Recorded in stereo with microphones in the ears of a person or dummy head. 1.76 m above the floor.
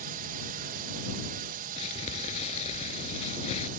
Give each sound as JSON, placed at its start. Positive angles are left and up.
{"t": 0.0, "sound": "a drone", "side_deg": -50}
{"t": 1.8, "sound": "crumpling", "side_deg": 30}